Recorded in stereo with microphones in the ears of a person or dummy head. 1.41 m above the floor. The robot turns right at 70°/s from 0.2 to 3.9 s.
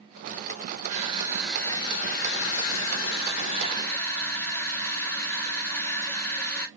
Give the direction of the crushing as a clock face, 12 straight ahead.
1 o'clock.